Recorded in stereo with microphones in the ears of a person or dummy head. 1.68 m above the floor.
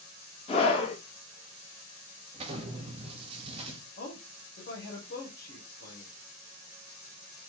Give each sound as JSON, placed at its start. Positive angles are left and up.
{"t": 0.5, "sound": "a scream", "side_deg": 35, "distance_m": 1.9}
{"t": 2.3, "sound": "an explosion", "side_deg": -35, "distance_m": 1.2}
{"t": 4.0, "sound": "a man speaking", "side_deg": 65, "distance_m": 1.4}